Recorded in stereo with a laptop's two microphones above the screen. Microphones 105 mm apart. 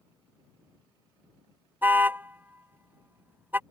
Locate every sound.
1.8 s a car horn: 20° right (ahead or behind)